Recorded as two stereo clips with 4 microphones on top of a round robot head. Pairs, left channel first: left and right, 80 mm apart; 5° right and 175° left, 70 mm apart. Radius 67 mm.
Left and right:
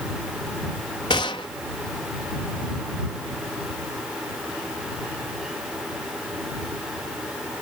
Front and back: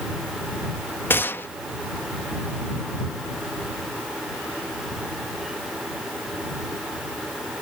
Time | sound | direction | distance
1.1 | a gunshot | 45° left | ?